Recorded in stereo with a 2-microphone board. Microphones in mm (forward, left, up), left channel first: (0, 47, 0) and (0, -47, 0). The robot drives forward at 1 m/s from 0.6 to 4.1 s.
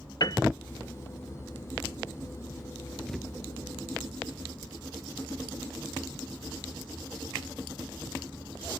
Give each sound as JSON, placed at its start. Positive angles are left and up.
{"t": 0.2, "sound": "a piano", "side_deg": 50}
{"t": 3.1, "sound": "a thud", "side_deg": 5}